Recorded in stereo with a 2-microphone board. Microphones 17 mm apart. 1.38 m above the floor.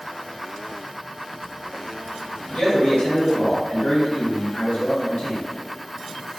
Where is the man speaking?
70° left (ahead or behind), 1.3 m.